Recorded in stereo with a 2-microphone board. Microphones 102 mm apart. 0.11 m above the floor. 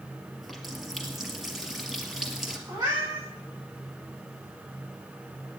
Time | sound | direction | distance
0.4 | a running tap | 5° right (ahead or behind) | 1.5 m
2.7 | a cat meowing | 35° right (ahead or behind) | 4 m